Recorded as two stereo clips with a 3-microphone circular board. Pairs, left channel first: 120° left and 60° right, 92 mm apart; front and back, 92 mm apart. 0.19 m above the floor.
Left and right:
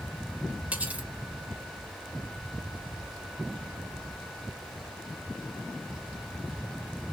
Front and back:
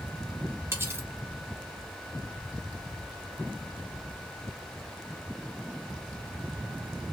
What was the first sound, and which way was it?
Cutlery clinking, 130° right.